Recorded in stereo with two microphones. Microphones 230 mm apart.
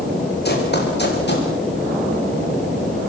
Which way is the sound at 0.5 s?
45° left (ahead or behind).